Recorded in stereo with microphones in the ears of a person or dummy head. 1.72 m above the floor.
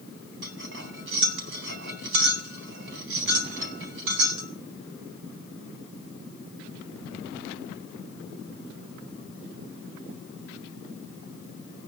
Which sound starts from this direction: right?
Cutlery clinking, at 0.4 s.